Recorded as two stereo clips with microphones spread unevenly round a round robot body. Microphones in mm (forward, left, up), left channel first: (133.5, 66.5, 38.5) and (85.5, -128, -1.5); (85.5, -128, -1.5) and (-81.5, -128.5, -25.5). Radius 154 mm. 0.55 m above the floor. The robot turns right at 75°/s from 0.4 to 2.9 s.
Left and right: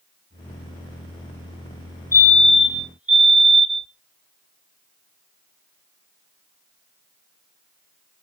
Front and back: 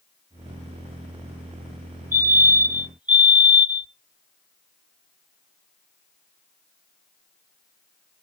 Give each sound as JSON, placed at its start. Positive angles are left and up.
{"t": 2.1, "sound": "a fire alarm", "azimuth_deg": 165, "distance_m": 1.6}